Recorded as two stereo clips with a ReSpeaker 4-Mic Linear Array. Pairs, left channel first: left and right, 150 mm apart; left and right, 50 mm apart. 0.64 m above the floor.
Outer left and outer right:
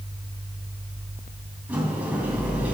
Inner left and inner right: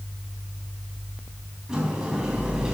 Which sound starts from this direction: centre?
A sliding door, at 1.7 s.